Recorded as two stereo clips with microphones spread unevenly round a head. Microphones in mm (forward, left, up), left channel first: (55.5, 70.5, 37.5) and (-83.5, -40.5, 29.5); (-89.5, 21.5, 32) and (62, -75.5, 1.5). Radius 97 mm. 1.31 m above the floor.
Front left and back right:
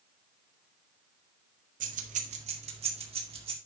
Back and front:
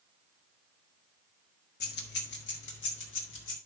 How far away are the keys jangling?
About 1.5 m.